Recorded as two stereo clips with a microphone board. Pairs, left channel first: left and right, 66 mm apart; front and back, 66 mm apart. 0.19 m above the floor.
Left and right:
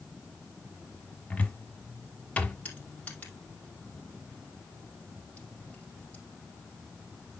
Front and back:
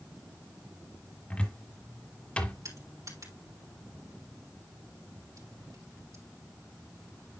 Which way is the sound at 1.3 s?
45° left.